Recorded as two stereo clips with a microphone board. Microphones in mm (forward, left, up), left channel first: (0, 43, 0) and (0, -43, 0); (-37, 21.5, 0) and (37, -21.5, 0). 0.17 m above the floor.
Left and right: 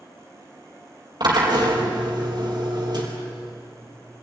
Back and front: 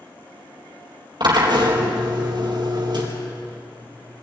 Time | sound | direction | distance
1.2 | a drill | 55° right | 4 m